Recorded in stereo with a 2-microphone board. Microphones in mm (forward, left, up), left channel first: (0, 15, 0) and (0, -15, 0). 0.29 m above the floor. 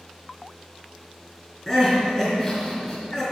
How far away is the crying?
About 3.5 m.